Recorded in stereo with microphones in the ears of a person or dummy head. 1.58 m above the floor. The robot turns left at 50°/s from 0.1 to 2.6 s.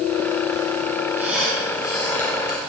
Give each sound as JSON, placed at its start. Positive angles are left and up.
{"t": 1.2, "sound": "a squeak", "azimuth_deg": -165, "distance_m": 3.0}